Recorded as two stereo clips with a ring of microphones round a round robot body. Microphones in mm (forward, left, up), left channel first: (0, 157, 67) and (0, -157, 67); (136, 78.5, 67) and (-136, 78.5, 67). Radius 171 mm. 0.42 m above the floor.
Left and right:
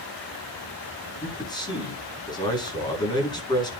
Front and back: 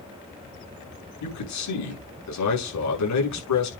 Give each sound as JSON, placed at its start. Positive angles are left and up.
{"t": 1.2, "sound": "a man speaking", "azimuth_deg": 15, "distance_m": 6.5}